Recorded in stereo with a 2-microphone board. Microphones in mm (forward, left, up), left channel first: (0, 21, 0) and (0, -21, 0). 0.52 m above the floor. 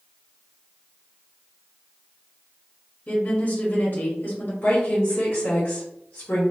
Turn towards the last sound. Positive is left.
turn(degrees=50)  # may be behind; listen again after turning